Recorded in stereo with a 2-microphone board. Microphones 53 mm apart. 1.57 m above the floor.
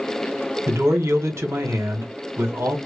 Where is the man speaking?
55° right (ahead or behind), 1.1 m.